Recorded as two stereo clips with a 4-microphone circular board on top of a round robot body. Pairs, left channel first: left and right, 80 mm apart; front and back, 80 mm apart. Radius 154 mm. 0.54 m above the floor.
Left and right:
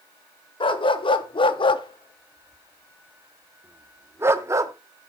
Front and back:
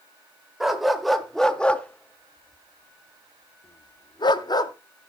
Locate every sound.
0.6 s a dog barking: 95° left, 1.3 m; by 4.7 s 40° right, 1.0 m